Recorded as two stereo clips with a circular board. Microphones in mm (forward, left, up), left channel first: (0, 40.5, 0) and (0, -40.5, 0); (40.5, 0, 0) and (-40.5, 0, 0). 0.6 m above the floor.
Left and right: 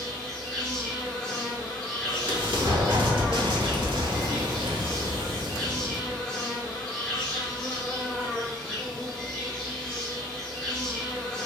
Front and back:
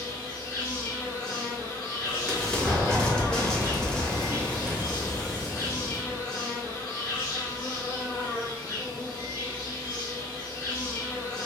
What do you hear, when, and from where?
0.0 s an insect: 5° left, 1.8 m
2.0 s an explosion: 80° right, 1.1 m